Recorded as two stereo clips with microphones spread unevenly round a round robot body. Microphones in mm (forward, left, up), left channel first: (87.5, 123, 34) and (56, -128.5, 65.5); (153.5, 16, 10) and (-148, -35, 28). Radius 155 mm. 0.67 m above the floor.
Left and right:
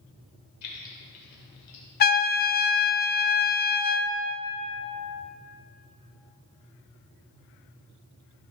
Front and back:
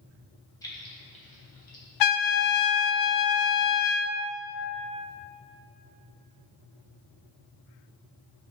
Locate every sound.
0.6 s keys jangling: 90° left, 2 m; by 1.8 s 70° left, 2.5 m
2.0 s a trumpet: 30° left, 0.6 m